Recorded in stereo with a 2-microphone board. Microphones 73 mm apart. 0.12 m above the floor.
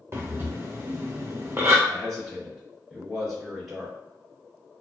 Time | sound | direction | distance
0.1 | breathing | 40° right (ahead or behind) | 1.1 m
1.9 | a man speaking | 5° right (ahead or behind) | 1.8 m